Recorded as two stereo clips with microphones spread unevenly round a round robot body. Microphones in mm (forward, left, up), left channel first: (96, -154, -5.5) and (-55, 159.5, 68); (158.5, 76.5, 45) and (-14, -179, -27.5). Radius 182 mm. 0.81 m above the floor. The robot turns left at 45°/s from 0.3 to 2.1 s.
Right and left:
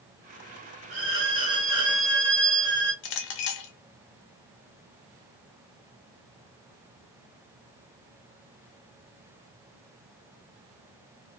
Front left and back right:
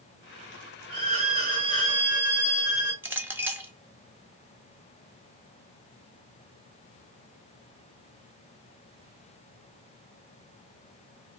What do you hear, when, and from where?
0.9 s a violin: 175° left, 1.8 m; by 2.9 s 120° left, 1.8 m
3.0 s a clink: 50° right, 0.7 m